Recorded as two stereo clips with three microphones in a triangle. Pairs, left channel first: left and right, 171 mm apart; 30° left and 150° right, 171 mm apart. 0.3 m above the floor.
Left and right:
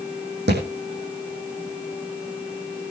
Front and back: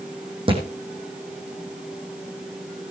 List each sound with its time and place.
0.5 s a thud: 90° right, 4 m